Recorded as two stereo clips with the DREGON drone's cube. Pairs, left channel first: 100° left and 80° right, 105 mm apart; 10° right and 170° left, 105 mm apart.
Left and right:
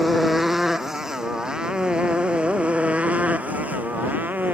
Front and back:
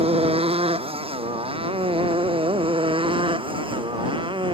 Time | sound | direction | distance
0.0 | a motorcycle | 170° right | ?